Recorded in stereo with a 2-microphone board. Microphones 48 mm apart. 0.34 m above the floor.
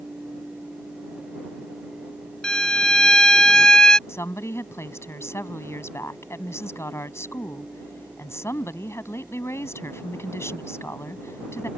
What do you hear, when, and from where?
2.4 s a violin: 15° left (ahead or behind)
4.1 s a woman speaking: 65° left (ahead or behind)